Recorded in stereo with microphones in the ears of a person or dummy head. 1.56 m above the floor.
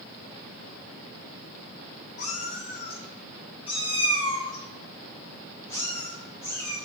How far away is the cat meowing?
About 3 m.